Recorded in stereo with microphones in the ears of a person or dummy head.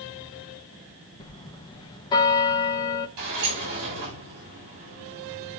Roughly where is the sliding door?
Right.